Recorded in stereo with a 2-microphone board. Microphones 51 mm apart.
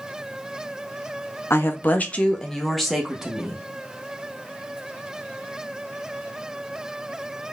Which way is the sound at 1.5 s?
50° left (ahead or behind).